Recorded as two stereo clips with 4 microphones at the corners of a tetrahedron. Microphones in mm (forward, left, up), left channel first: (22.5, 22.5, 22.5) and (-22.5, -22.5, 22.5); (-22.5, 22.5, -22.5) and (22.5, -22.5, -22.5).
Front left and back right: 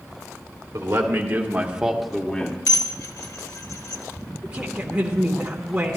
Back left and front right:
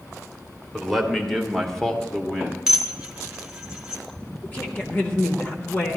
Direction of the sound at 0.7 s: 140° right.